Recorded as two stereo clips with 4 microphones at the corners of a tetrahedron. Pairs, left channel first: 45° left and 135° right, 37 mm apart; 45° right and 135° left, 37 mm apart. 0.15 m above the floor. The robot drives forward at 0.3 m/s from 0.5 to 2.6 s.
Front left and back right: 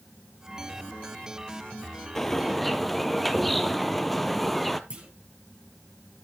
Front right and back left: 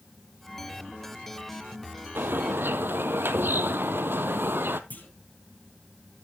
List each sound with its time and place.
2.1 s a bird: 125° left, 0.7 m; by 4.8 s 130° left, 0.8 m
4.9 s a clunk: 80° right, 3 m